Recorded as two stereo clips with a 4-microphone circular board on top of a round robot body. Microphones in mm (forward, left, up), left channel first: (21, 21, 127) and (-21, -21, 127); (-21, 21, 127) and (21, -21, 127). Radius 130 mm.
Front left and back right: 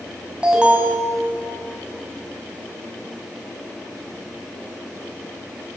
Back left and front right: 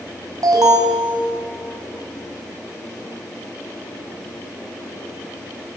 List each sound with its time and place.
0.4 s an alarm: 60° right, 4.5 m